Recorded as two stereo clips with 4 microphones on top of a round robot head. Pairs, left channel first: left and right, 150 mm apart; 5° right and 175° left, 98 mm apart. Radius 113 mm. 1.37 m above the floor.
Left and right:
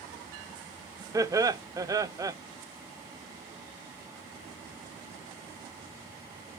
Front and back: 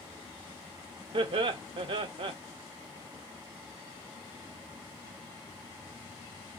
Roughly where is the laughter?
Behind right.